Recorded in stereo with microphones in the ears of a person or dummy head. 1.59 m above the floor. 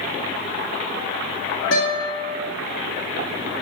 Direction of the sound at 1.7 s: 65° left (ahead or behind).